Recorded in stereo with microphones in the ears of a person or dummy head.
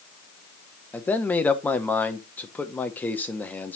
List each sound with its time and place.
0.9 s a man speaking: 10° left (ahead or behind), 1.0 m